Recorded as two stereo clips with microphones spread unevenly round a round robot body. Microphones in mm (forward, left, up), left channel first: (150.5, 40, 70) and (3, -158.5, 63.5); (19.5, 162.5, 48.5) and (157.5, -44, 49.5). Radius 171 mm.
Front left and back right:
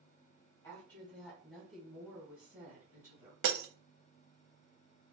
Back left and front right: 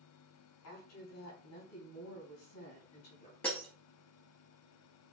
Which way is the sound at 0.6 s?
135° left.